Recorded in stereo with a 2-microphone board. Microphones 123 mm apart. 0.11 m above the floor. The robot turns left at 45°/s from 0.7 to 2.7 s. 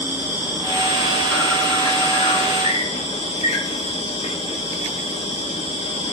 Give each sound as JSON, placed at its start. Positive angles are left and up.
{"t": 0.0, "sound": "an insect", "azimuth_deg": -160, "distance_m": 4.5}